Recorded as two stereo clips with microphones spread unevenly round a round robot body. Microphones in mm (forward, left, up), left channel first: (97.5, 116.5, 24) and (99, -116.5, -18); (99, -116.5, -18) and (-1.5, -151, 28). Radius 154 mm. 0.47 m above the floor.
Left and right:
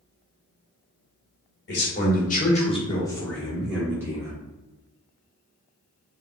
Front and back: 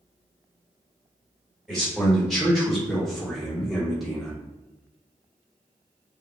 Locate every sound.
1.7 s a man speaking: 70° left, 1.3 m; by 4.3 s 40° right, 1.4 m